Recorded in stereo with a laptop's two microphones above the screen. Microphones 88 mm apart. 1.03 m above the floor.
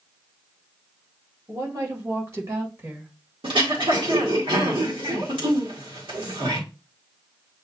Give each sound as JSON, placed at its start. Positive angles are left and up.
{"t": 1.5, "sound": "a woman speaking", "side_deg": -50, "distance_m": 1.8}
{"t": 3.4, "sound": "throat clearing", "side_deg": -80, "distance_m": 2.0}